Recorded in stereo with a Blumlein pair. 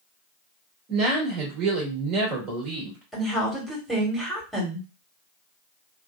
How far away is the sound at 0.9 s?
About 1.5 m.